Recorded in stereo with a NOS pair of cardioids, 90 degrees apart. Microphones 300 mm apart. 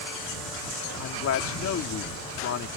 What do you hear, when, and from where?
1.0 s a man speaking: 55° left